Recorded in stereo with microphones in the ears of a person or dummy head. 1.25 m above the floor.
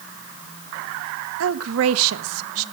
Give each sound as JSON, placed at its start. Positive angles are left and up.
{"t": 1.4, "sound": "a woman speaking", "side_deg": -80, "distance_m": 1.1}